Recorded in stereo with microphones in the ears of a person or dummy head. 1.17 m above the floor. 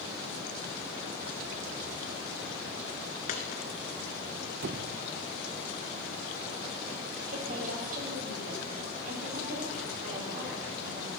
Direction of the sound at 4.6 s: 65° right (ahead or behind).